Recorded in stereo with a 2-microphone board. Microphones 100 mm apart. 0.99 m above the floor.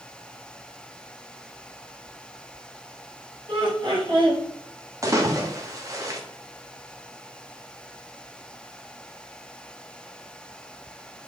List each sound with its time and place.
3.5 s laughter: 55° right (ahead or behind), 1.8 m
5.0 s a splash: 35° right (ahead or behind), 0.8 m